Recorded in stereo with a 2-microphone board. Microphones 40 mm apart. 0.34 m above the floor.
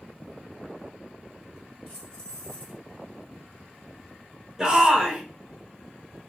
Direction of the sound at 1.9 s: 20° left (ahead or behind).